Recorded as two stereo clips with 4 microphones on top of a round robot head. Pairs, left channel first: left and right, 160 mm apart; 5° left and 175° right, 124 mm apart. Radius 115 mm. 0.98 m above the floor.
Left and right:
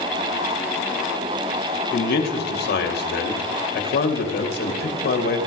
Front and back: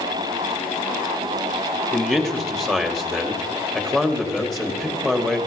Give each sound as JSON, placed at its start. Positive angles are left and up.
{"t": 1.9, "sound": "a man speaking", "azimuth_deg": 90, "distance_m": 2.5}